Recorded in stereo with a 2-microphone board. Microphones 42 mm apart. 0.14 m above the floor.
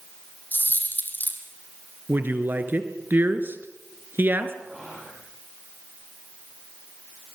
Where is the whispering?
15° right (ahead or behind), 7 m.